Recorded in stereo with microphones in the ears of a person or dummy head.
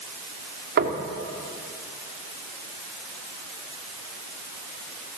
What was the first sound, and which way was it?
Knocking, 65° right (ahead or behind).